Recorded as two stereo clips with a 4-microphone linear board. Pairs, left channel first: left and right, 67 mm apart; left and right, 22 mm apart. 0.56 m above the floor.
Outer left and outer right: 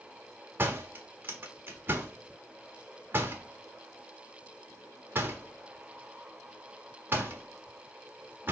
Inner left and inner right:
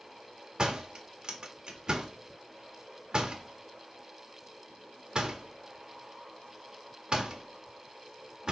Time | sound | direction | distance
0.6 | a door slam | 35° right (ahead or behind) | 1.4 m